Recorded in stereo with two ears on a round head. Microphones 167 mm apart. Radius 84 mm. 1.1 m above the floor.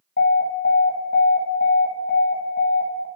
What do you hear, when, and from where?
0.2 s an alarm: 55° left (ahead or behind), 1.7 m